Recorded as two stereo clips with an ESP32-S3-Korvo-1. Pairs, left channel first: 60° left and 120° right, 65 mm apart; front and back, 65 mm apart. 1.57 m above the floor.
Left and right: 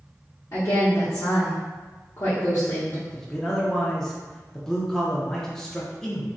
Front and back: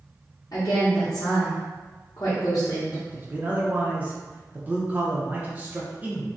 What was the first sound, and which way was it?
A woman speaking, 25° left.